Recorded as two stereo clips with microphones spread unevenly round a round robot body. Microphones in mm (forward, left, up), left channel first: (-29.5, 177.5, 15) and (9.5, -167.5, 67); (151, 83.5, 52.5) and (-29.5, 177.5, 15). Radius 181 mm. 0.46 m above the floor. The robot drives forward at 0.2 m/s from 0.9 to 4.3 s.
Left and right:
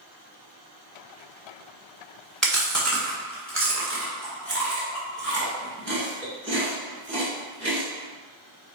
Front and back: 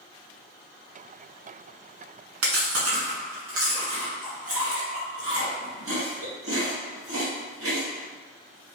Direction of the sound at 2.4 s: 175° right.